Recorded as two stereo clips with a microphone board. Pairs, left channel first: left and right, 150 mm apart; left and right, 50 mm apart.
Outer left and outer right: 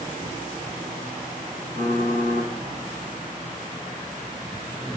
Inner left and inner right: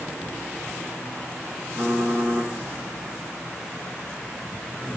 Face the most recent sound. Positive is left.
turn(degrees=-65)  # may be behind; listen again after turning